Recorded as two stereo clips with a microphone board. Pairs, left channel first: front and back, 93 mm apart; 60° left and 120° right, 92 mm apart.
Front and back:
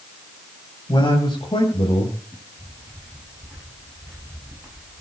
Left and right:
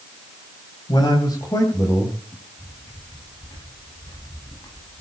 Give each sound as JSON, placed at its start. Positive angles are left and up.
{"t": 0.9, "sound": "a man speaking", "azimuth_deg": 30, "distance_m": 2.5}
{"t": 2.3, "sound": "footsteps", "azimuth_deg": 110, "distance_m": 10.0}